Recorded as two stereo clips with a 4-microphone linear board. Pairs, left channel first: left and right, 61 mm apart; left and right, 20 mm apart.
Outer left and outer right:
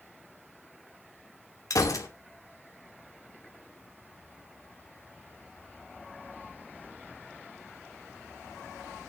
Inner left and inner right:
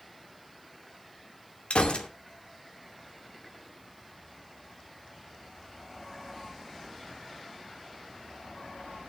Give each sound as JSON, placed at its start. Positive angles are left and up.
{"t": 1.7, "sound": "a gunshot", "side_deg": 65, "distance_m": 2.5}